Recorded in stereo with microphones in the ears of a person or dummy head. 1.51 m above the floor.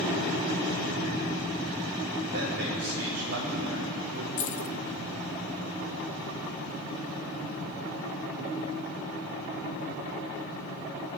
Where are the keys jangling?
45° left (ahead or behind), 0.8 m.